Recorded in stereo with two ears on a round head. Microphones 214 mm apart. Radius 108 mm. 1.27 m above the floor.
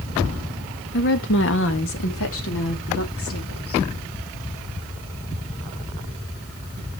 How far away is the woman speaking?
About 1.2 m.